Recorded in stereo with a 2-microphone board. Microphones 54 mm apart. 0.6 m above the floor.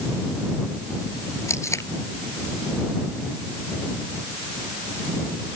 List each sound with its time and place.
1.5 s tape being pulled: 60° left (ahead or behind)